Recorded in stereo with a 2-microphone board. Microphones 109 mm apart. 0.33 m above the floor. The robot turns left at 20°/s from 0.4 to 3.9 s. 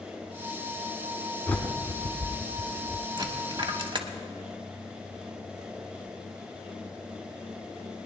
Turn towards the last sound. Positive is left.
turn(degrees=-50)  # may be behind; listen again after turning